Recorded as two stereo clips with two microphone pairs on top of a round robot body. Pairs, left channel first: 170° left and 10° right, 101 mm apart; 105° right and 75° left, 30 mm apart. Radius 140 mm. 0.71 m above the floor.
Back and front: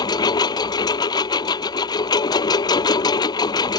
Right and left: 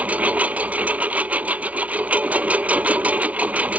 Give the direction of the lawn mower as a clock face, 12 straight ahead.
8 o'clock.